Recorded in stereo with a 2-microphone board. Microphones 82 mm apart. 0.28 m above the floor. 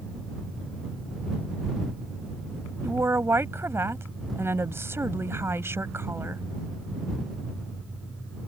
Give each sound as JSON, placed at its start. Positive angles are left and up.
{"t": 2.8, "sound": "a woman speaking", "side_deg": -30}